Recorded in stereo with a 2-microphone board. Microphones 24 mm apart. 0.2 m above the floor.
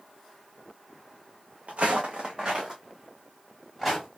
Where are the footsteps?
70° right (ahead or behind), 0.9 m; by 4.1 s centre (ahead or behind), 2.5 m.